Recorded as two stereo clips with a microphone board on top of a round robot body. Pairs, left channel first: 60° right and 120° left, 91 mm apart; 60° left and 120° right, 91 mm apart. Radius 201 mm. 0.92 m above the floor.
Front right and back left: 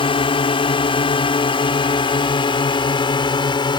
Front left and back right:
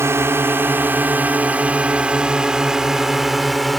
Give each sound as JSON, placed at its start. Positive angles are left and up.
{"t": 0.0, "sound": "a drone", "azimuth_deg": -60}